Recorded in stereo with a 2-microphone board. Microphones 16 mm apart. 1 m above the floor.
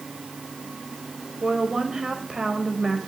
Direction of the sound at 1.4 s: 40° right (ahead or behind).